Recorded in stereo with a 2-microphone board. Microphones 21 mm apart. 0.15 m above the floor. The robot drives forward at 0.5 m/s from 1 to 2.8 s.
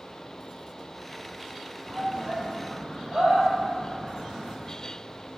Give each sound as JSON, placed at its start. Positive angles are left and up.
{"t": 1.9, "sound": "a shout", "side_deg": -75, "distance_m": 6.0}